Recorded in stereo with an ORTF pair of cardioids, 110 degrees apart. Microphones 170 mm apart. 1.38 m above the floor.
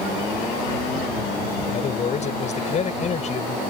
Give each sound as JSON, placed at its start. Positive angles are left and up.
{"t": 1.7, "sound": "a man speaking", "azimuth_deg": 45}